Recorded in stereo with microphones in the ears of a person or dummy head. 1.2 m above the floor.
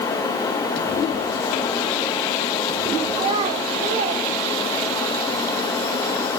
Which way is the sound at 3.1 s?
30° right (ahead or behind).